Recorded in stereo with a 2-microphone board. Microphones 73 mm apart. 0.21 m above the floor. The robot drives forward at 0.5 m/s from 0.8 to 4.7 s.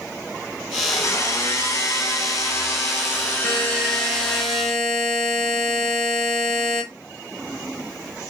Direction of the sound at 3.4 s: 10° left (ahead or behind).